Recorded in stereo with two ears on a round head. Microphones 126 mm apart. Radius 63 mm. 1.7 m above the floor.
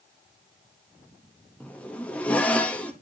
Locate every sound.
1.6 s a zipper: 10° left (ahead or behind), 0.8 m